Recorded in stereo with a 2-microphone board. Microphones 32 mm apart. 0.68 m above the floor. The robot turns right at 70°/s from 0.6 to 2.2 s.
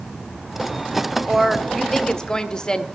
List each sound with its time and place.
1.3 s a woman speaking: 20° right, 0.6 m; by 2.9 s 45° left, 0.6 m